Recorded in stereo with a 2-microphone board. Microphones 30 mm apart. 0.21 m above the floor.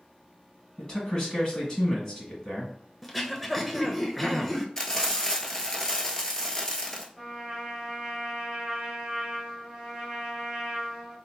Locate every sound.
0.8 s a man speaking: 30° left (ahead or behind), 1.6 m
3.0 s throat clearing: 5° left (ahead or behind), 0.5 m
4.8 s frying: 20° left (ahead or behind), 0.7 m
7.2 s a trumpet: 5° right (ahead or behind), 1.8 m